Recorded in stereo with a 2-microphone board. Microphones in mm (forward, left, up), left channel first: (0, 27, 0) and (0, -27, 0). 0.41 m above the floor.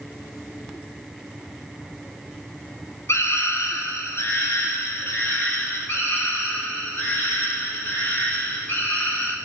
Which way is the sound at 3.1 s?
55° left (ahead or behind).